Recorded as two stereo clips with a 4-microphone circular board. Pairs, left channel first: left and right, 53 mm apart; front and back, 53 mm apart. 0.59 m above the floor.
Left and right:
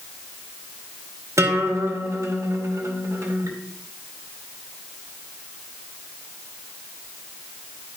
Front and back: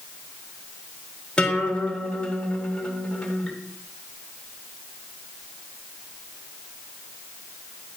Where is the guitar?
75° right, 1.8 m.